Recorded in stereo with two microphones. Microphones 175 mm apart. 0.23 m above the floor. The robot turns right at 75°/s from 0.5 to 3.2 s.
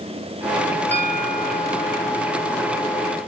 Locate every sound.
0.9 s a bell: 140° right, 3 m; by 2.0 s 60° right, 3 m